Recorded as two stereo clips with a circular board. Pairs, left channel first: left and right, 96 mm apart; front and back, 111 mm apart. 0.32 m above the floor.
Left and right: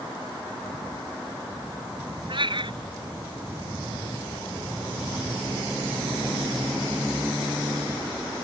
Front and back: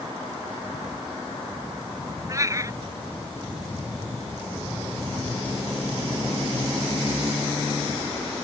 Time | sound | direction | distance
2.3 | a cat meowing | 120° right | ?